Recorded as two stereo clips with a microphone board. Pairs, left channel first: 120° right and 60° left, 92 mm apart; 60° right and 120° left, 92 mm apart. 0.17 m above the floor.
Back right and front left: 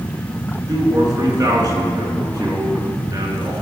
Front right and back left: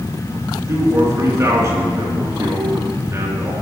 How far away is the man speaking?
About 2 m.